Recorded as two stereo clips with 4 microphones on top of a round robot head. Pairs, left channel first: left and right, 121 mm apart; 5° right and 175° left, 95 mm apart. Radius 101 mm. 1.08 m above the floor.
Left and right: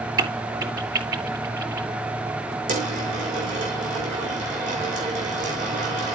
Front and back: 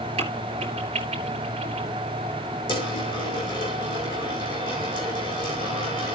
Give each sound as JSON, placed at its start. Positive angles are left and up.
{"t": 0.2, "sound": "a crack", "azimuth_deg": -145, "distance_m": 4.0}
{"t": 2.7, "sound": "a dropped coin", "azimuth_deg": -55, "distance_m": 5.5}